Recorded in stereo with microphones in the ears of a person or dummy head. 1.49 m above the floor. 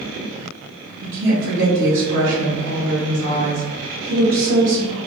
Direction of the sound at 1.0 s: 75° right (ahead or behind).